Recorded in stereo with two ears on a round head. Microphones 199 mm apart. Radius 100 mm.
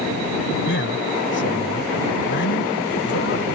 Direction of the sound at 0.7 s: 55° left (ahead or behind).